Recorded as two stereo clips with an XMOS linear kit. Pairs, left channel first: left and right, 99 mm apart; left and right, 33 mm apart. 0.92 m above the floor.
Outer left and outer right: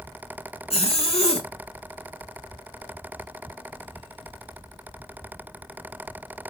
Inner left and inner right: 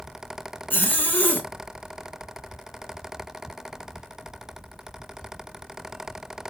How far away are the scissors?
No scissors in this recording.